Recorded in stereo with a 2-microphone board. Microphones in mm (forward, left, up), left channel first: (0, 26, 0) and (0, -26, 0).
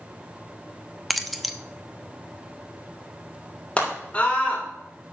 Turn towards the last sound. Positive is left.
turn(degrees=25)  # may be behind; listen again after turning